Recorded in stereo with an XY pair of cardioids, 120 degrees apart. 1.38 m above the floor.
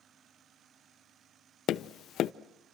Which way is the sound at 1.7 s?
65° left.